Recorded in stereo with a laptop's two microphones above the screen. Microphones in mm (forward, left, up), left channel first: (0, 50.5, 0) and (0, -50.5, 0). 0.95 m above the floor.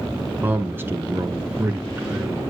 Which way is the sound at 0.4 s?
15° right (ahead or behind).